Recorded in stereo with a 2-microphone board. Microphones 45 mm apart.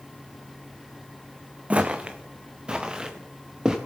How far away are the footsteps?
About 0.9 m.